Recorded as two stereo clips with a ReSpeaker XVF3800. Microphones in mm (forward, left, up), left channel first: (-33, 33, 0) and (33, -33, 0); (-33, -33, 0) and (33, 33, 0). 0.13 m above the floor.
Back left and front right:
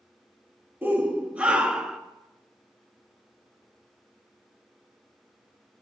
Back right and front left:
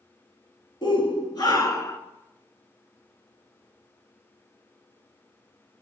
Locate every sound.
0.8 s a shout: 110° right, 3 m; by 2.0 s 125° right, 1.6 m